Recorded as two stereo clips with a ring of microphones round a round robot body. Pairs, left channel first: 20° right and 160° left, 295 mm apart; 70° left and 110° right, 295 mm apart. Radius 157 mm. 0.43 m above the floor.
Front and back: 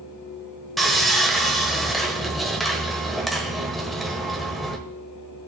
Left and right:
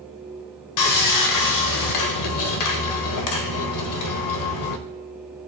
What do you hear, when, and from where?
0.8 s sawing: 65° left, 1.2 m